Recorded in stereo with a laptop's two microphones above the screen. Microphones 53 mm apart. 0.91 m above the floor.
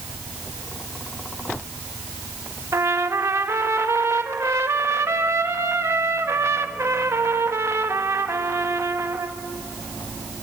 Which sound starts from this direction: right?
A trumpet, at 2.7 s.